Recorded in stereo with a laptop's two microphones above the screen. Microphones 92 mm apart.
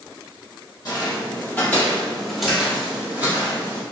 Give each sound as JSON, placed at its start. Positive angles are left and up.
{"t": 0.8, "sound": "footsteps", "side_deg": 40, "distance_m": 1.3}